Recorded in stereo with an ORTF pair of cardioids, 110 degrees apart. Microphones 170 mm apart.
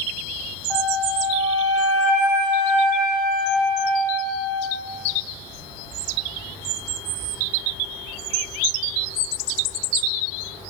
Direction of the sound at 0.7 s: 10° left.